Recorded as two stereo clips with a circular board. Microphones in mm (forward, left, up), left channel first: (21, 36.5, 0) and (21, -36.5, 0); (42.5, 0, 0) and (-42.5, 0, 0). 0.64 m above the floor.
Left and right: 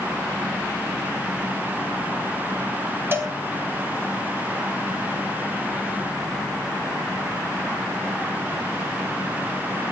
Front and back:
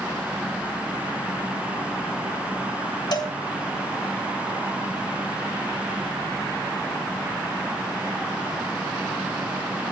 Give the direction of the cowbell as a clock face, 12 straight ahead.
1 o'clock.